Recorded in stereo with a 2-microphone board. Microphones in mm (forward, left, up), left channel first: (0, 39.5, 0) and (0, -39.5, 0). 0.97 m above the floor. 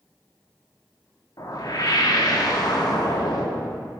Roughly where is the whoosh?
Left.